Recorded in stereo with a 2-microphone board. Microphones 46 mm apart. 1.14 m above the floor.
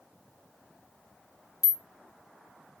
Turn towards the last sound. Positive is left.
turn(degrees=-5)  # may be behind; listen again after turning